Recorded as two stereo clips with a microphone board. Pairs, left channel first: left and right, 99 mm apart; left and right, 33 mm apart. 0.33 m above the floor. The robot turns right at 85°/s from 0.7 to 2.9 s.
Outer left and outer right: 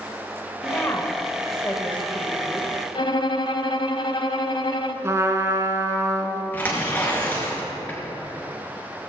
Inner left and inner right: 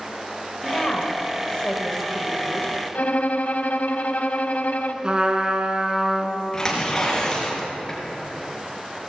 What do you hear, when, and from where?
0.6 s a woman speaking: 25° left (ahead or behind), 1.6 m; by 2.7 s 20° right (ahead or behind), 1.6 m
3.0 s a violin: 60° left (ahead or behind), 0.7 m
5.0 s a trumpet: 30° right (ahead or behind), 1.2 m
6.5 s tearing paper: 20° left (ahead or behind), 4 m